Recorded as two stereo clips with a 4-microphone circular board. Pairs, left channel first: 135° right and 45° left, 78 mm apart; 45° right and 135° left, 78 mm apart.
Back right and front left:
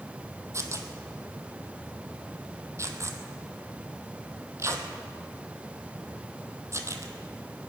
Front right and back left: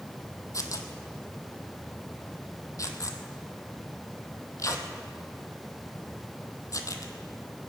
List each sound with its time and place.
0.5 s tearing paper: 5° right, 1.2 m